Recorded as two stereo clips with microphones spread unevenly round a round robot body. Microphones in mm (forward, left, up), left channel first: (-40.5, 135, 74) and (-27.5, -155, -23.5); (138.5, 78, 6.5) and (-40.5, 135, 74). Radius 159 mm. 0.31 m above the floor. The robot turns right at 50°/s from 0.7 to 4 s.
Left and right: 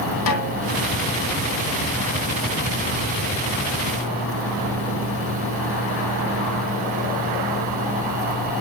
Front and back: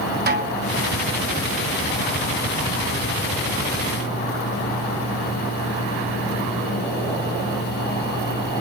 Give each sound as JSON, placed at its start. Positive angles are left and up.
{"t": 0.3, "sound": "a snare drum", "azimuth_deg": 120, "distance_m": 3.0}